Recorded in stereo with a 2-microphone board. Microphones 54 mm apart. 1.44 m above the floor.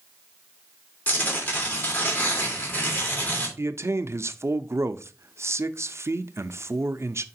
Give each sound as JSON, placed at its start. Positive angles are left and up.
{"t": 1.1, "sound": "tearing paper", "side_deg": 30, "distance_m": 2.5}
{"t": 3.6, "sound": "a man speaking", "side_deg": -55, "distance_m": 0.5}